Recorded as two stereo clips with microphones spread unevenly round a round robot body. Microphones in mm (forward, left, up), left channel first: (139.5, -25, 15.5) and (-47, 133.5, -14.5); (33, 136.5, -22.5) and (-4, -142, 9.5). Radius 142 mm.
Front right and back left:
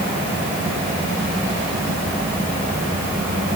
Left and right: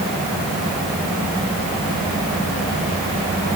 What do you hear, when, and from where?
Only background noise.